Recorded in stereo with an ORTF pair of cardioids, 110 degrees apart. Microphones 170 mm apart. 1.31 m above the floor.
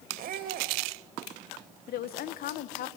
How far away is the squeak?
About 2.5 m.